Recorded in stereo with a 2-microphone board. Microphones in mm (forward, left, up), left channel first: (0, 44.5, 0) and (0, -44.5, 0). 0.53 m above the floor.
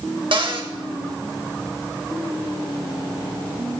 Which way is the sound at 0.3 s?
70° right (ahead or behind).